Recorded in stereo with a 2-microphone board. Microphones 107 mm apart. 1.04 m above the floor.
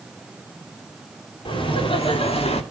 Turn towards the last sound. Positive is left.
turn(degrees=70)  # may be behind; listen again after turning